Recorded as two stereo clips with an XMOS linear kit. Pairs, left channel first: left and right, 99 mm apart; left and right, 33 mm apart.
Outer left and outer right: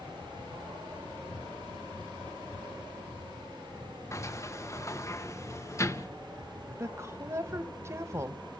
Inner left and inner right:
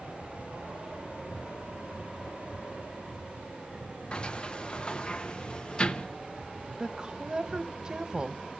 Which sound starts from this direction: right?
A woman speaking, at 6.8 s.